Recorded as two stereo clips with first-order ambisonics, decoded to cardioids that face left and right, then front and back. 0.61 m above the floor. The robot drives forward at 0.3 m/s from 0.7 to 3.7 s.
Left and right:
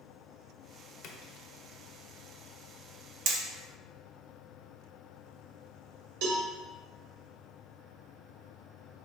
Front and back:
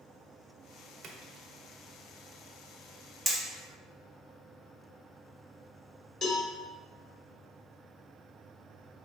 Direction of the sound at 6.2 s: 80° right.